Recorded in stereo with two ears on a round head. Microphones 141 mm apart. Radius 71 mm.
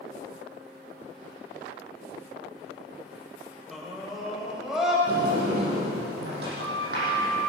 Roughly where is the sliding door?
Right.